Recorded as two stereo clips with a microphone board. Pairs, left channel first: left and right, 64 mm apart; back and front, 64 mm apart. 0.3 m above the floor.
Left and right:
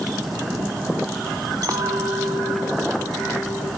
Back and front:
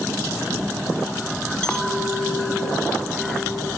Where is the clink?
100° right, 1.5 m.